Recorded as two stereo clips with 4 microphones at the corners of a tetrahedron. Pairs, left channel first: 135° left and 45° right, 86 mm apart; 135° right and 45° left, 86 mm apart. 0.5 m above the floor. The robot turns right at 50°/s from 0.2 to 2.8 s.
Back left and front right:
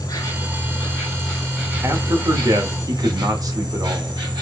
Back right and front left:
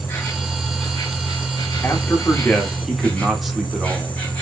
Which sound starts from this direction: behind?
An insect, at 0.0 s.